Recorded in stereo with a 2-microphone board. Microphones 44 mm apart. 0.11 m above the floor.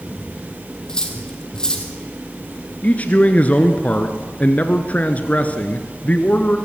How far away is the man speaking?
About 1.2 m.